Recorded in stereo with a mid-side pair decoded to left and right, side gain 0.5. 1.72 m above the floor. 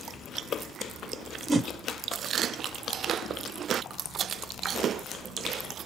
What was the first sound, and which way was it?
A whoosh, 30° right.